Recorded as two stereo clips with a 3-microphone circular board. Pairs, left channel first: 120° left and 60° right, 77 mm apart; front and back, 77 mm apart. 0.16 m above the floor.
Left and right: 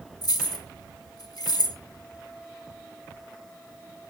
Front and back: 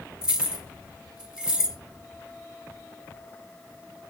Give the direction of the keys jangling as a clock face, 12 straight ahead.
9 o'clock.